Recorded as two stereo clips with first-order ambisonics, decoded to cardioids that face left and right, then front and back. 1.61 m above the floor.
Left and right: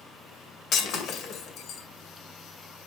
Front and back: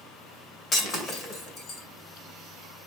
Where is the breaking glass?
55° left, 2 m.